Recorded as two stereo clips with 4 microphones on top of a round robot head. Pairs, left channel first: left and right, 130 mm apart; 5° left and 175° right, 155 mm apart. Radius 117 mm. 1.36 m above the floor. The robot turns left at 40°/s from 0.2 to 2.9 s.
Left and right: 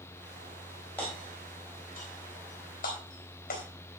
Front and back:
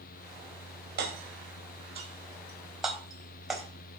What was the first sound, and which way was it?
Hammering, 170° left.